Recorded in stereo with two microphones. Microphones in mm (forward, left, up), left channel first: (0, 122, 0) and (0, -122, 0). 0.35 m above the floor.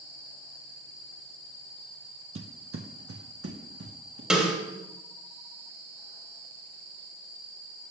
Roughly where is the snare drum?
Centre.